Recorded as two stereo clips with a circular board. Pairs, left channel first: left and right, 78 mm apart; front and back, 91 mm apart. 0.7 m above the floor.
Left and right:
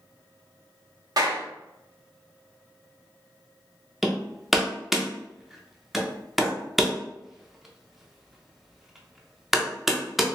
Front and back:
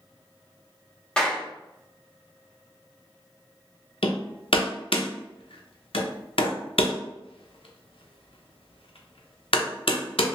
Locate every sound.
1.2 s a clap: 80° right, 1.0 m
4.0 s hammering: 5° right, 0.6 m